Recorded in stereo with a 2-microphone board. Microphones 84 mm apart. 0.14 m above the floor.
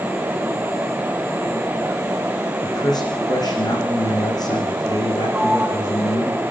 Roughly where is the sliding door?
Centre.